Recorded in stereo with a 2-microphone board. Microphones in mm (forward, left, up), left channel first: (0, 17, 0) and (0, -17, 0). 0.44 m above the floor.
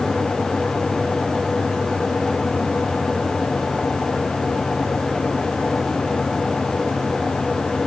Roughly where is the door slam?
No door slam in this recording.